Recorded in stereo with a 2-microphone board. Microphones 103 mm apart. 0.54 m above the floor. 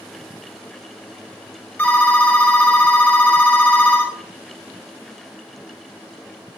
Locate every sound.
1.8 s a phone ringing: 15° left (ahead or behind), 1.7 m